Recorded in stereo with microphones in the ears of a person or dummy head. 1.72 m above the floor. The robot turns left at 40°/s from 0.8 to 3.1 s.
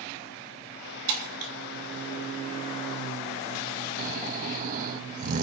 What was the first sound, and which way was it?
Breaking glass, 60° right (ahead or behind).